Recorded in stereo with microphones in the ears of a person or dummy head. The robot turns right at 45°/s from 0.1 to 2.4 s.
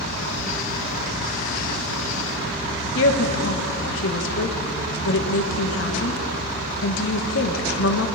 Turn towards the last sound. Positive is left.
turn(degrees=70)  # may be behind; listen again after turning